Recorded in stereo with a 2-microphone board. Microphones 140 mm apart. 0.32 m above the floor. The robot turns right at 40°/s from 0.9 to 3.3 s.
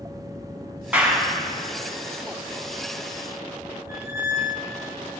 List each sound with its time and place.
0.9 s a clap: 10° right (ahead or behind), 3 m; by 1.3 s 25° right (ahead or behind), 3 m
3.9 s a squeak: 15° right (ahead or behind), 1.7 m